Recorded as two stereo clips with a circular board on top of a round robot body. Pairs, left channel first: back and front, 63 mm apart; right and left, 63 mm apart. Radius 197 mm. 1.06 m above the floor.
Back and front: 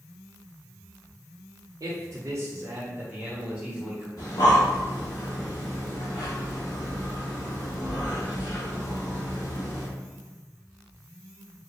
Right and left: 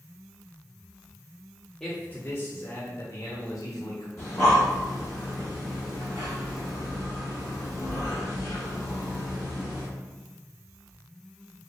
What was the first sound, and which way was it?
A man speaking, 5° right.